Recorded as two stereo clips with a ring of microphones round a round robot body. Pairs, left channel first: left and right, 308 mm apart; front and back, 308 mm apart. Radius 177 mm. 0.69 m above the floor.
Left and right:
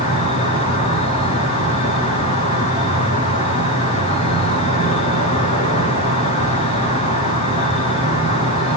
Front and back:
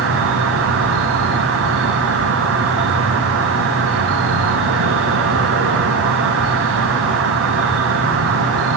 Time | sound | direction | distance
0.0 | an insect | 155° left | 0.8 m